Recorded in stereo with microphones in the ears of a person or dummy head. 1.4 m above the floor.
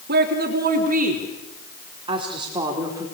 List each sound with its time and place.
0.1 s a woman speaking: 55° right (ahead or behind), 4 m; by 3.0 s 15° right (ahead or behind), 4 m